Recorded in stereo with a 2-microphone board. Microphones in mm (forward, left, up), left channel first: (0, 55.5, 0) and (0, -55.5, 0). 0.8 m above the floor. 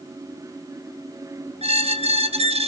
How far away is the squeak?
About 0.8 m.